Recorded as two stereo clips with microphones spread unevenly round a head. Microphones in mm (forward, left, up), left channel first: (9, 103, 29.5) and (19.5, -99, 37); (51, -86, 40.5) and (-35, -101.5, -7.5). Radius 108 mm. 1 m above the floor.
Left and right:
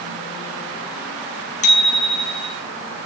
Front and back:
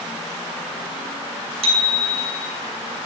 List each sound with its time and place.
1.6 s a bicycle bell: 155° left, 9 m